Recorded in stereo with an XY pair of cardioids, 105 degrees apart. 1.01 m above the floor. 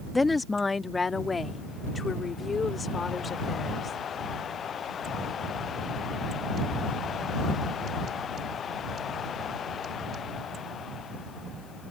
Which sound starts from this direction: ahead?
A woman speaking, at 0.1 s.